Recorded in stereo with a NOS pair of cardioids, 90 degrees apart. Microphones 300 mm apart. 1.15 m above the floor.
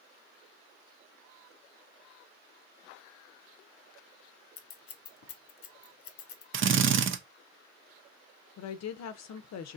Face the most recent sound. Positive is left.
turn(degrees=60)